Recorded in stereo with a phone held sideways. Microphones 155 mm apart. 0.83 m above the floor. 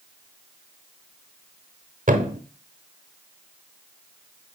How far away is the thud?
About 0.8 m.